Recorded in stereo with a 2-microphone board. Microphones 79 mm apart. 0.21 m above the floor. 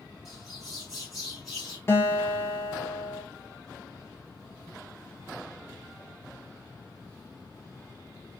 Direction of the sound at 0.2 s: 5° right (ahead or behind).